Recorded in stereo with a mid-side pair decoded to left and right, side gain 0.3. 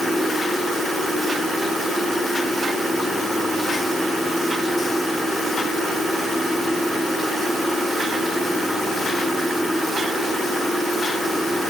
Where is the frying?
I don't hear frying.